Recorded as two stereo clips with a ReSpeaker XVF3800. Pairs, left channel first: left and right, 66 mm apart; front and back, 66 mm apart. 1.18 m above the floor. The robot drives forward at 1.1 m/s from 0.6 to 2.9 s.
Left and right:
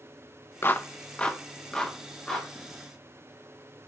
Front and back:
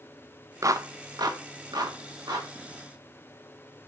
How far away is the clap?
About 0.5 m.